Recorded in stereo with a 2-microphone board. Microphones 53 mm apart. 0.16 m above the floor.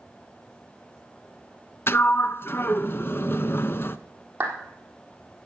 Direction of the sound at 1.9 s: 45° left (ahead or behind).